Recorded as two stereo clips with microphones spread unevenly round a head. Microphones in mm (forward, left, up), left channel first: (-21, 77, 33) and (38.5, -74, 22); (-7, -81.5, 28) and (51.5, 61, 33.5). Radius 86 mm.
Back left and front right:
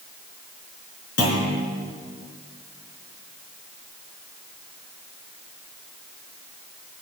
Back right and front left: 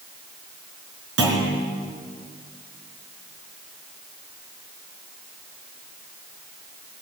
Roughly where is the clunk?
Left.